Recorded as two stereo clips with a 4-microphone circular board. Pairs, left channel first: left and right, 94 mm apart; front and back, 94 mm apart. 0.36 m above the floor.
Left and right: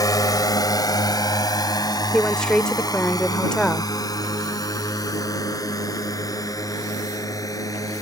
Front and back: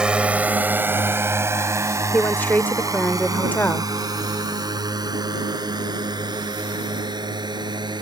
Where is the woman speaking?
25° left.